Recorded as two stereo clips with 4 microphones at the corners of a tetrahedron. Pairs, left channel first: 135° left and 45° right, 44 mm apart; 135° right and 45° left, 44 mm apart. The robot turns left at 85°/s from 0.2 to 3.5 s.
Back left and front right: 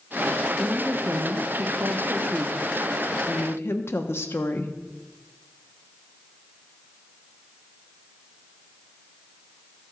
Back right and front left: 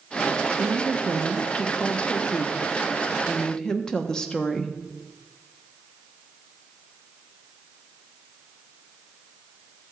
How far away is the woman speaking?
About 0.9 m.